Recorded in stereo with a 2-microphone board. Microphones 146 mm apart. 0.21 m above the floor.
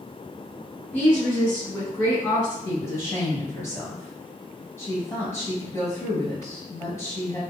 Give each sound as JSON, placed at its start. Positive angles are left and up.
{"t": 0.9, "sound": "a woman speaking", "side_deg": 15, "distance_m": 1.6}
{"t": 2.6, "sound": "a woman speaking", "side_deg": 20, "distance_m": 1.7}